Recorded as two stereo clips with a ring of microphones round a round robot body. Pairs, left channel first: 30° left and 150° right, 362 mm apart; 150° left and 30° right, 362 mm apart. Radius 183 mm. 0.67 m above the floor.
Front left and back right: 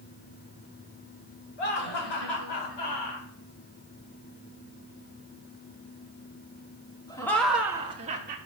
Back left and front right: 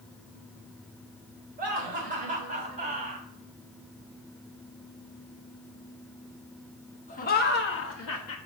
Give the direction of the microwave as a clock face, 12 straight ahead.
No microwave in this recording.